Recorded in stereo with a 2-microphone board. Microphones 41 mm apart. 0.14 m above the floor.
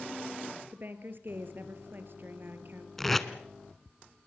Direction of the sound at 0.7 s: 55° right (ahead or behind).